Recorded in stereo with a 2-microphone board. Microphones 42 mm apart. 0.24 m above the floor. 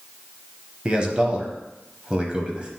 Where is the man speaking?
25° right (ahead or behind), 1.0 m.